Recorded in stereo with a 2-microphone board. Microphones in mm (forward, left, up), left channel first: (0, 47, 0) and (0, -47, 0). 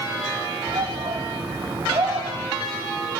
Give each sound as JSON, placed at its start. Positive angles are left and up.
{"t": 0.7, "sound": "a shout", "side_deg": -65, "distance_m": 3.5}